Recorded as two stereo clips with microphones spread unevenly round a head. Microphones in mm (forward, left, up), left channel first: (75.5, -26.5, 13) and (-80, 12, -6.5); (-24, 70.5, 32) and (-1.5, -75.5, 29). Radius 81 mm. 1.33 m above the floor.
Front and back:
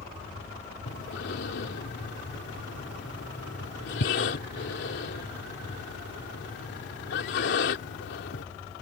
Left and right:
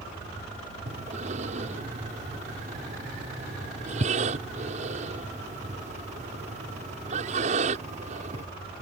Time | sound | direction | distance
0.9 | breathing | 35° right | ?